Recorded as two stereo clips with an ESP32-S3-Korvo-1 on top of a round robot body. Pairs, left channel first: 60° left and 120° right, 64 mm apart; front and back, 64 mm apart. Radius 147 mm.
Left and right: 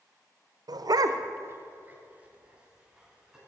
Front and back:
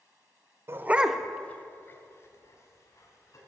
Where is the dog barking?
130° right, 0.7 m; by 3.4 s 40° right, 2.5 m.